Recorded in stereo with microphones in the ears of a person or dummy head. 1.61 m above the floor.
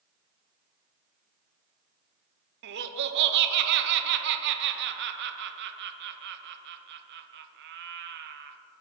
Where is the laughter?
70° right (ahead or behind), 0.8 m.